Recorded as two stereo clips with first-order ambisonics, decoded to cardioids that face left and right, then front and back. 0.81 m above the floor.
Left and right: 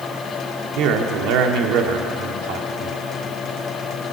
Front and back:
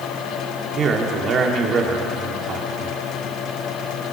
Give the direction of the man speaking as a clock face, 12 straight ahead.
4 o'clock.